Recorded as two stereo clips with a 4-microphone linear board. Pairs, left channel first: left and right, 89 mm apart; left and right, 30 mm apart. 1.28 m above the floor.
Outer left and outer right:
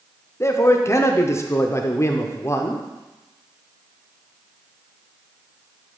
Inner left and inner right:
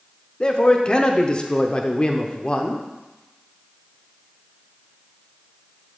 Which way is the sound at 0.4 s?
30° left (ahead or behind).